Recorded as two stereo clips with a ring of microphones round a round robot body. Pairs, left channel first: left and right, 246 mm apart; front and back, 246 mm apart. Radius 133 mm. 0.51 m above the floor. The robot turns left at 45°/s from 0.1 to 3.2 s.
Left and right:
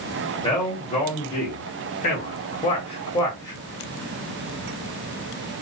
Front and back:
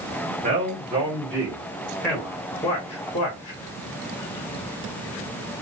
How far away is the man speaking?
About 1.1 m.